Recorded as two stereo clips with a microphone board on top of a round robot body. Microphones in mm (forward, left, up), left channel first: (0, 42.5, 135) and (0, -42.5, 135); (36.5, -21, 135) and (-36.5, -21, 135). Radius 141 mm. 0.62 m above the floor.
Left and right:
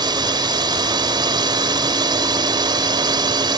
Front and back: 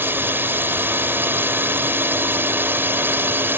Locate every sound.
0.0 s a drone: 120° right